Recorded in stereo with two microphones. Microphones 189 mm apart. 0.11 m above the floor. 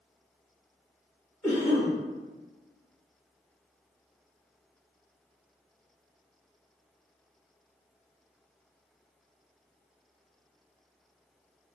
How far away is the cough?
About 1.6 m.